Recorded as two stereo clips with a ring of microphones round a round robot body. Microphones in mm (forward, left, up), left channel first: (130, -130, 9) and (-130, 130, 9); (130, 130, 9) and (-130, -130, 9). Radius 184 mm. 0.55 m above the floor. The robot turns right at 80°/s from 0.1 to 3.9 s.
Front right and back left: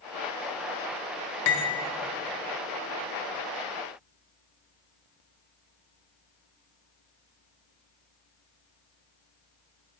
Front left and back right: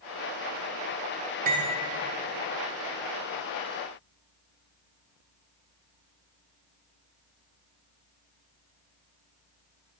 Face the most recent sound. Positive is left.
turn(degrees=130)